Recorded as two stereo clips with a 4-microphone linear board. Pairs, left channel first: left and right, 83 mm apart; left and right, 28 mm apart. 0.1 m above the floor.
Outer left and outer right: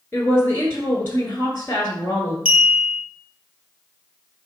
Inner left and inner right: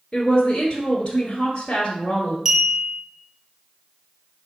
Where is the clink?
10° right (ahead or behind), 1.8 m.